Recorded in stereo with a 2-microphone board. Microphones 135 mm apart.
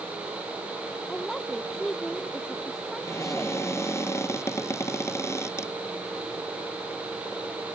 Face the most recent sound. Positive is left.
turn(degrees=20)  # may be behind; listen again after turning